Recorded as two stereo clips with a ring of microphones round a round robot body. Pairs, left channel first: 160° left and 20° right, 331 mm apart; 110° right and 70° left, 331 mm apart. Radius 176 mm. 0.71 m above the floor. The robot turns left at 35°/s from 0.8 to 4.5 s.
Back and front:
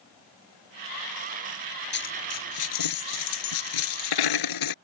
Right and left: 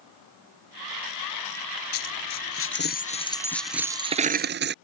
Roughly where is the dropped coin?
Behind right.